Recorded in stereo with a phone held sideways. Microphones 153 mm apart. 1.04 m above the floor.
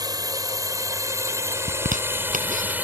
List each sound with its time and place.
0.0 s a drone: 25° right (ahead or behind); by 2.8 s 10° right (ahead or behind)
1.7 s a zipper: 60° right (ahead or behind)